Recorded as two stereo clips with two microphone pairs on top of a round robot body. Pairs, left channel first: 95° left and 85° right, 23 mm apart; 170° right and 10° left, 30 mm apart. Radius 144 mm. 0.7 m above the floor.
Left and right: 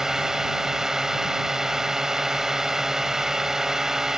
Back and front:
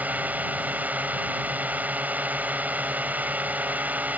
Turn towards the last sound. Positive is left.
turn(degrees=-15)